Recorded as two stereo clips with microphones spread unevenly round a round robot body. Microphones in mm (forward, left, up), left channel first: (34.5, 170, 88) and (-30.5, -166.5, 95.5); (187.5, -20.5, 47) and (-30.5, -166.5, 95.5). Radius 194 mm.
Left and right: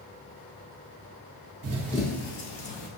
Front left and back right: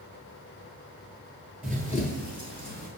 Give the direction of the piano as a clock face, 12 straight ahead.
No piano in this recording.